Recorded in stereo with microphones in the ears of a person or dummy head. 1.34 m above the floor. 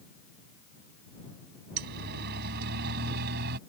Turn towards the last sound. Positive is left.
turn(degrees=-55)  # may be behind; listen again after turning